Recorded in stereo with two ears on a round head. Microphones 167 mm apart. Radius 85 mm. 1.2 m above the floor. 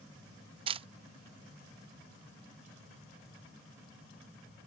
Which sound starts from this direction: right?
A camera shutter, at 0.7 s.